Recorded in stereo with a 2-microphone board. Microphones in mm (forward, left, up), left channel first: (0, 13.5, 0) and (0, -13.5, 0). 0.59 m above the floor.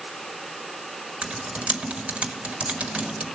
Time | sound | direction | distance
1.2 | typing on a keyboard | 45° right (ahead or behind) | 1.1 m